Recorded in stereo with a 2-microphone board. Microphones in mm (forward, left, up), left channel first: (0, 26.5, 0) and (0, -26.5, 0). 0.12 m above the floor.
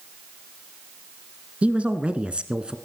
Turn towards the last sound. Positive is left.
turn(degrees=-20)  # may be behind; listen again after turning